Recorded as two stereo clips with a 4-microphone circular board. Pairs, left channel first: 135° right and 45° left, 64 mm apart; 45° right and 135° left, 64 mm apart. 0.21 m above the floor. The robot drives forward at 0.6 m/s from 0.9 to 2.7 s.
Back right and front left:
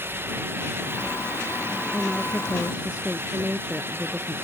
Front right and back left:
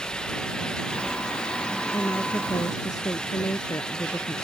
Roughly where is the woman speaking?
Ahead right.